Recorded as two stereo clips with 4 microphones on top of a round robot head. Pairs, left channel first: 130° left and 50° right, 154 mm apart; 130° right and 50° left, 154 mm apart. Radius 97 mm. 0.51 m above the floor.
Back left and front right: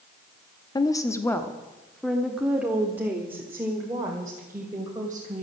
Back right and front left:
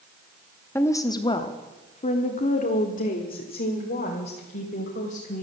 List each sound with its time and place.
0.8 s a woman speaking: 170° left, 1.0 m; by 5.4 s 115° right, 3 m